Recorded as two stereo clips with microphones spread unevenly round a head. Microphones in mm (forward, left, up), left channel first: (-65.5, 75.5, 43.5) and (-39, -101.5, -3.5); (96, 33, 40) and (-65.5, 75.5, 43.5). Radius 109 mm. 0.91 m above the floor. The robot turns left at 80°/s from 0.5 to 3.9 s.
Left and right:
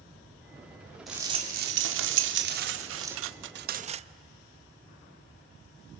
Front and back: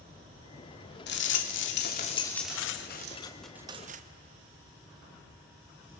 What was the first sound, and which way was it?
A rattle, 5° left.